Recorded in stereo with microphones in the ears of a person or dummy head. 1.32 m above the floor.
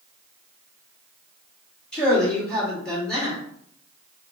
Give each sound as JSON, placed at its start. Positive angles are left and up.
{"t": 1.9, "sound": "a man speaking", "side_deg": 5, "distance_m": 2.0}